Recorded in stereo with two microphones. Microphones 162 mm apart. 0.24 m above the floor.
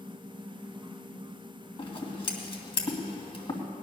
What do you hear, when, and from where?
1.8 s scissors: 35° left (ahead or behind), 2 m